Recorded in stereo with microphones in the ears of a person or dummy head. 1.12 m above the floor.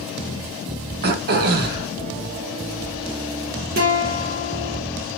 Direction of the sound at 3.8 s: 50° right (ahead or behind).